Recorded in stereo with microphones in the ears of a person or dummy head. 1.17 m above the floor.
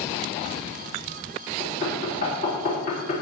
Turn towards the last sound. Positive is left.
turn(degrees=50)  # may be behind; listen again after turning